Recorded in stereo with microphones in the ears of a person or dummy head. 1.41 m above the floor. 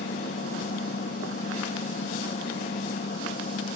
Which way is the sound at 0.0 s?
40° left (ahead or behind).